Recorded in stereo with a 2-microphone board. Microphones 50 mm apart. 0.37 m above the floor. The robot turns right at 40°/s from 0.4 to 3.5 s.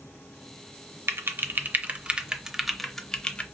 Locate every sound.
1.1 s typing on a keyboard: 50° right (ahead or behind), 0.6 m; by 3.4 s 25° left (ahead or behind), 0.6 m